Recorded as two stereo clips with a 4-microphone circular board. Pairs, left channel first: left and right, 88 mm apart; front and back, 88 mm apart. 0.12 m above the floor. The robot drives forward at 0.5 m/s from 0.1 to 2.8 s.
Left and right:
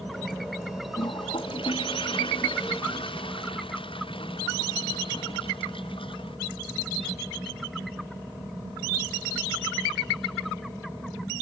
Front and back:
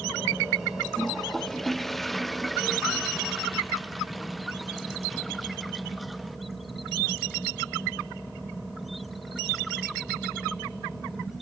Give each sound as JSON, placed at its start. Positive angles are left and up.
{"t": 1.0, "sound": "a toilet flushing", "azimuth_deg": 85}